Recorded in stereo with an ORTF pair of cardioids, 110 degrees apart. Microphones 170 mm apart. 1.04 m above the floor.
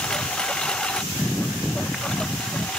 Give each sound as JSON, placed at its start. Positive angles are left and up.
{"t": 0.0, "sound": "a lawn mower", "azimuth_deg": 5}